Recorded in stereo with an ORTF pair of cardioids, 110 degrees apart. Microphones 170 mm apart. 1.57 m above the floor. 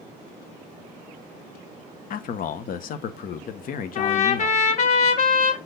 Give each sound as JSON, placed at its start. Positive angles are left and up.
{"t": 2.1, "sound": "a man speaking", "azimuth_deg": 60, "distance_m": 1.2}
{"t": 4.0, "sound": "a trumpet", "azimuth_deg": 45, "distance_m": 1.7}